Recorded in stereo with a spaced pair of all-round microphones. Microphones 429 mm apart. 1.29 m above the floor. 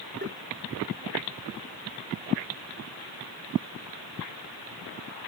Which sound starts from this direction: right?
Tapping, at 0.2 s.